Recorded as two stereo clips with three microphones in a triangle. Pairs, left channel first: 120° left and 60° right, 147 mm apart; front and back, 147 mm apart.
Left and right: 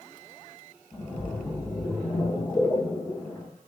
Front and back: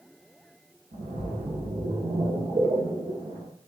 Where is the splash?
175° right, 1.5 m.